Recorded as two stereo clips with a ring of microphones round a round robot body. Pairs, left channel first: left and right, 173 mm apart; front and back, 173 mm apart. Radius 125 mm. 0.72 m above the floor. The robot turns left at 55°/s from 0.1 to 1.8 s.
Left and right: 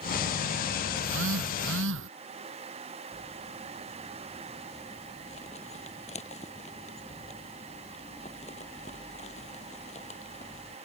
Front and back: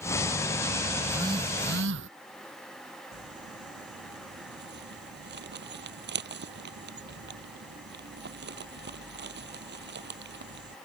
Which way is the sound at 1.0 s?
85° right.